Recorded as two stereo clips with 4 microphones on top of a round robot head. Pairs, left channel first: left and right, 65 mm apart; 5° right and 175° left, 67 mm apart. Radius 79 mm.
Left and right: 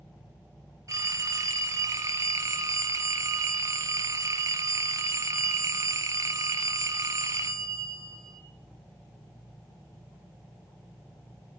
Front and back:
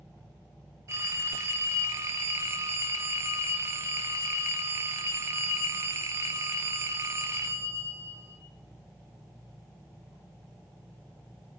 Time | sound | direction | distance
0.9 | a phone ringing | 130° right | 3 m